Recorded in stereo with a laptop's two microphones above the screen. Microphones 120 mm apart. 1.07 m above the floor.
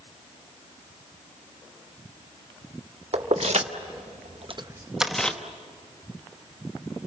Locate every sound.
3.1 s keys jangling: 65° right (ahead or behind), 1.5 m; by 5.4 s 10° left (ahead or behind), 1.0 m